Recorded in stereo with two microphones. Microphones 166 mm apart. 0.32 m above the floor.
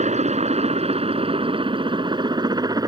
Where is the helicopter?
45° right (ahead or behind); by 2.9 s 20° right (ahead or behind).